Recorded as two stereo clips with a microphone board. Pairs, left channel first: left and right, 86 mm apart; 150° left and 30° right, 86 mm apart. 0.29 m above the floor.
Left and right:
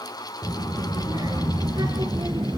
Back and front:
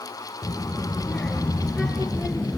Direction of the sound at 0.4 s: 130° right.